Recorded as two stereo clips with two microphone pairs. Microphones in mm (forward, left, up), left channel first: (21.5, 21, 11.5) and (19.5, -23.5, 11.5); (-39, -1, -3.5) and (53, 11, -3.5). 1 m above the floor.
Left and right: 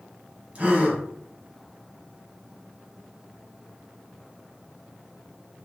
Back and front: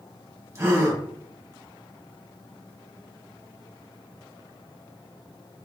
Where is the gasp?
40° right, 1.1 m.